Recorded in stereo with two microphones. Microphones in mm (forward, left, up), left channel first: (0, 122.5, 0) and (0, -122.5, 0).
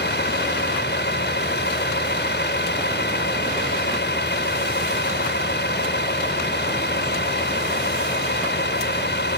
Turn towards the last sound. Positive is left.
turn(degrees=45)  # may be behind; listen again after turning